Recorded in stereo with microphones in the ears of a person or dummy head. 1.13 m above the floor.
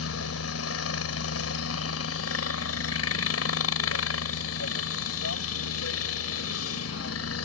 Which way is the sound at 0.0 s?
75° left (ahead or behind).